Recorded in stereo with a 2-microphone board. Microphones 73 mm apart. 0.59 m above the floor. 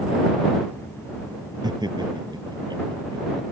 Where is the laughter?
85° right.